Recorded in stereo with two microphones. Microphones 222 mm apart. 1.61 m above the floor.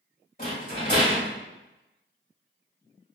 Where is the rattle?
40° left (ahead or behind), 1.6 m.